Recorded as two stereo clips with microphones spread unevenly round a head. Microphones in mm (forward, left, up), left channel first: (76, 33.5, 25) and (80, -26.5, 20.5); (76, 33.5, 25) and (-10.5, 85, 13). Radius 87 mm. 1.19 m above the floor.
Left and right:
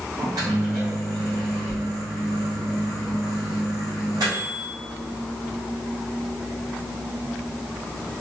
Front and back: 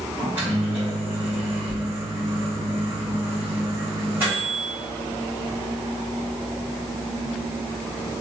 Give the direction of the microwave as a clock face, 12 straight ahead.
4 o'clock.